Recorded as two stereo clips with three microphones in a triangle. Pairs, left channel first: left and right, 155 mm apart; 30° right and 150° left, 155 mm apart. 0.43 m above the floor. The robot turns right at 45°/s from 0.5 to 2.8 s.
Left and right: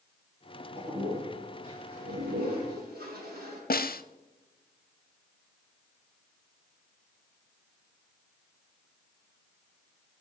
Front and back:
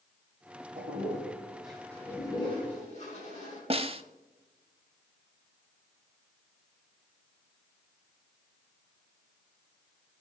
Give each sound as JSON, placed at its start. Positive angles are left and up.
{"t": 0.8, "sound": "a toilet flushing", "azimuth_deg": -165, "distance_m": 9.0}
{"t": 3.7, "sound": "a snare drum", "azimuth_deg": 100, "distance_m": 0.7}